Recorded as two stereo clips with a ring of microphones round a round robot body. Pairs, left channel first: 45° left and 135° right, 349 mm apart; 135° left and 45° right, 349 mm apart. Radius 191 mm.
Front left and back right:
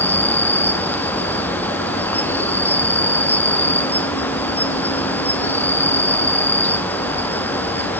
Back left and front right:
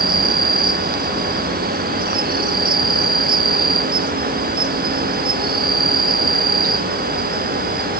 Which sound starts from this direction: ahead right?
An insect, at 0.0 s.